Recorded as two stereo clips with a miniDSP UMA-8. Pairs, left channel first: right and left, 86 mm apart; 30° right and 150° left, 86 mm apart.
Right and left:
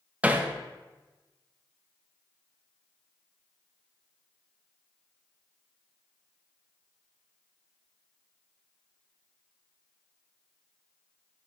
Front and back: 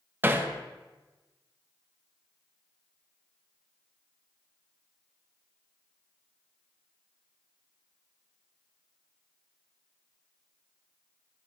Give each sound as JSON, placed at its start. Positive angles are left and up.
{"t": 0.2, "sound": "hammering", "azimuth_deg": 135, "distance_m": 0.6}